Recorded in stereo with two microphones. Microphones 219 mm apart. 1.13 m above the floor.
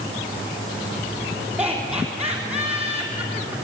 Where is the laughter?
10° right (ahead or behind), 3.5 m.